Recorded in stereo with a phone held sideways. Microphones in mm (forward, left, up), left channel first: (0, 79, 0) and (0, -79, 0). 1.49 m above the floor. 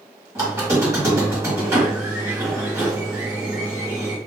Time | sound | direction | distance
0.3 | a squeak | 20° right (ahead or behind) | 1.8 m